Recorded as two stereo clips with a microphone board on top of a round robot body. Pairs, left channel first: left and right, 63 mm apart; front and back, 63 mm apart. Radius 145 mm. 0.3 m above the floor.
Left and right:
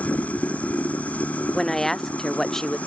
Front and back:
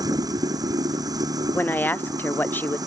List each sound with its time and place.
0.0 s running water: 160° left
1.5 s a woman speaking: 15° left